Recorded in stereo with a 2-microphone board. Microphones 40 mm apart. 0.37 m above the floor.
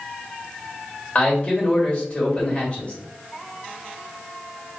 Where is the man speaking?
30° left (ahead or behind), 1.4 m.